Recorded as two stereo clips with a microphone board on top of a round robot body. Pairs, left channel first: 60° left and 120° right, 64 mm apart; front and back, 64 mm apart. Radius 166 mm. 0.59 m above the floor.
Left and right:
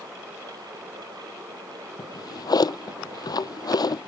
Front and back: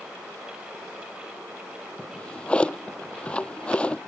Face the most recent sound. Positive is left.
turn(degrees=70)